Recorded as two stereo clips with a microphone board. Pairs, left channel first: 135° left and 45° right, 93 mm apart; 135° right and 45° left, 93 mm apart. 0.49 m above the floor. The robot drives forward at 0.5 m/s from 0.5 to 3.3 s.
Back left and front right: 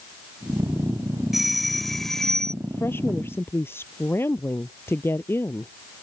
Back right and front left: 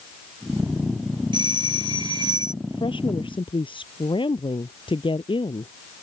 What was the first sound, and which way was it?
A doorbell, 40° left.